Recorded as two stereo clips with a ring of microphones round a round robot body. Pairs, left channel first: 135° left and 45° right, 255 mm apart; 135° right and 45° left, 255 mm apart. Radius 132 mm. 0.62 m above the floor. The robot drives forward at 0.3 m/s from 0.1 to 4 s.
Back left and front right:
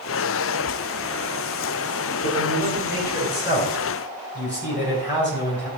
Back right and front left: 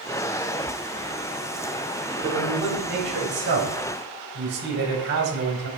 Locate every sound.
2.2 s a man speaking: 80° left, 4 m; by 5.7 s 90° left, 4 m